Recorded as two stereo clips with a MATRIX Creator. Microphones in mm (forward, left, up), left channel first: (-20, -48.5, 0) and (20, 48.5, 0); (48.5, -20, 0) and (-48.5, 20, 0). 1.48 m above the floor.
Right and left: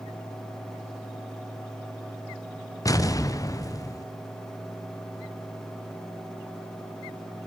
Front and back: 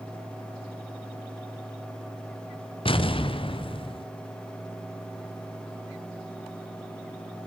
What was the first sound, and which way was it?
An explosion, 55° right.